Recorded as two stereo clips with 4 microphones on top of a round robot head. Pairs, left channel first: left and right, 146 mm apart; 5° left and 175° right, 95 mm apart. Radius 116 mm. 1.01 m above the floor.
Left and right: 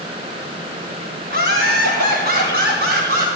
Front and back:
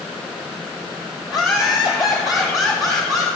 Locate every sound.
1.3 s laughter: 120° right, 7 m; by 3.3 s 110° right, 7 m